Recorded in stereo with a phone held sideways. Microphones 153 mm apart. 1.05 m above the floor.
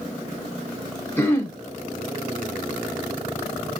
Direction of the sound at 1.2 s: 15° left (ahead or behind).